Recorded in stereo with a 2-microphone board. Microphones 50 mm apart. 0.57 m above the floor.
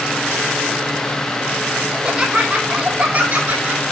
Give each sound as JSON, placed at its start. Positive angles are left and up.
{"t": 1.9, "sound": "laughter", "side_deg": -15, "distance_m": 1.9}